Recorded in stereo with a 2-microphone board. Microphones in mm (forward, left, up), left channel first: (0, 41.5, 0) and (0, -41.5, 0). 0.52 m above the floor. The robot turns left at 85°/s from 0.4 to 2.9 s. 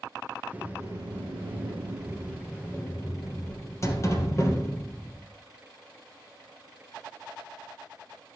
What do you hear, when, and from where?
0.5 s a sliding door: 15° right, 2 m; by 5.3 s 145° left, 2 m